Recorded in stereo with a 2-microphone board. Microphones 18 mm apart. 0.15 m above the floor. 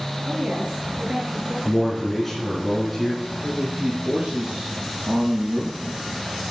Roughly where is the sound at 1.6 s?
Centre.